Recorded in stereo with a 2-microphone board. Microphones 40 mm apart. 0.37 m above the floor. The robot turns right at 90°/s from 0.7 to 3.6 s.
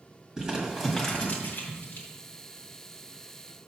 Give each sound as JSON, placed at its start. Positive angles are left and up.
{"t": 0.4, "sound": "crumpling", "side_deg": -15, "distance_m": 1.9}